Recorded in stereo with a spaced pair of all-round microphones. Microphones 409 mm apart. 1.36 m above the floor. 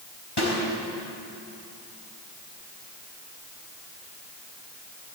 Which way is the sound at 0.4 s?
80° left.